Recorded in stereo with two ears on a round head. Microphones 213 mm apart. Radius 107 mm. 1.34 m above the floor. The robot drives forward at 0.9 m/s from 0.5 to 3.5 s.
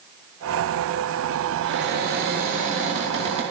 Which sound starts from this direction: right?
A cupboard door, at 1.6 s.